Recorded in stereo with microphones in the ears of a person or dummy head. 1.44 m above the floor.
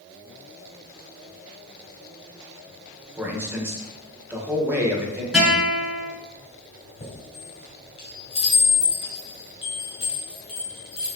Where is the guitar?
Centre (ahead or behind), 3.5 m.